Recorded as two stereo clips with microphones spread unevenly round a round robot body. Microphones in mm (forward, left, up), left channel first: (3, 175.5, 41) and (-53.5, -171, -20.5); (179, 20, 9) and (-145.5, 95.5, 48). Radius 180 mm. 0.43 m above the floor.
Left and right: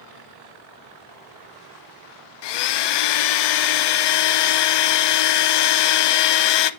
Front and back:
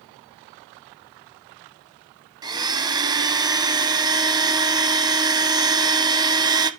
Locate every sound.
2.4 s a blender: 90° left, 0.6 m